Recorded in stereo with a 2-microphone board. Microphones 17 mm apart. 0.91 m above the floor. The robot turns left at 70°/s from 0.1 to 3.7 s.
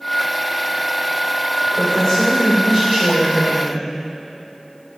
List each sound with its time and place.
1.6 s a woman speaking: 90° left, 3 m; by 3.9 s 55° right, 3 m